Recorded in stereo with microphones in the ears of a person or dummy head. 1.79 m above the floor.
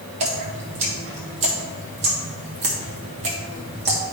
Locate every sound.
0.2 s dripping: 35° right (ahead or behind), 1.2 m